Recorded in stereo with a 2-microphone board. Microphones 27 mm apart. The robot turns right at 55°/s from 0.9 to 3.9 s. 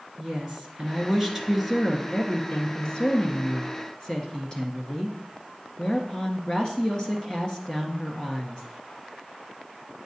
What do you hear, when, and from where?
0.2 s a woman speaking: 40° right, 1.5 m; by 8.6 s 125° left, 1.5 m